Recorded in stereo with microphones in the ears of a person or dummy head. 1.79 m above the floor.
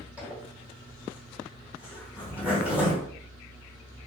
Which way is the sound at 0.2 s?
10° right (ahead or behind).